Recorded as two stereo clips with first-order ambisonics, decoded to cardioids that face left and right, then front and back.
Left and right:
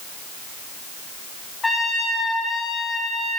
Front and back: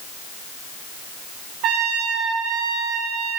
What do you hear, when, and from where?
1.6 s a trumpet: 165° left, 3.5 m